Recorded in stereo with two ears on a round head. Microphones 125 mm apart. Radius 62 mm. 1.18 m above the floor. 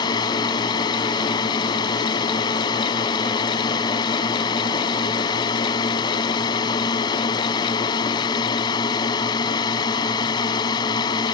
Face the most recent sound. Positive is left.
turn(degrees=30)  # may be behind; listen again after turning